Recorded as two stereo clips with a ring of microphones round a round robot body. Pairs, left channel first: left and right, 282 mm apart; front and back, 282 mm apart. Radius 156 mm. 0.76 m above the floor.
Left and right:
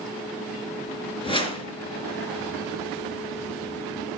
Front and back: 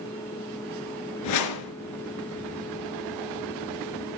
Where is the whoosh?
20° left, 3 m.